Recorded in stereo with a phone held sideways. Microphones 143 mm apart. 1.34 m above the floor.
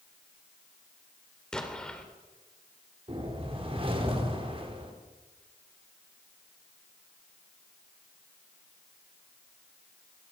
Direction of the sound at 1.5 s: 5° left (ahead or behind).